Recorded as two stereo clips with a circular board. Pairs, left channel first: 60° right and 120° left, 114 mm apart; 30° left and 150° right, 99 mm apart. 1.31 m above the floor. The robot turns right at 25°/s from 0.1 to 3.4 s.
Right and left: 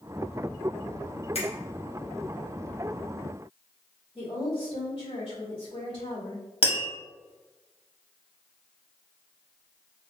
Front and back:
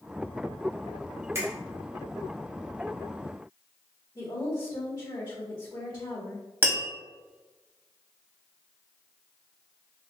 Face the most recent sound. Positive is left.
turn(degrees=-85)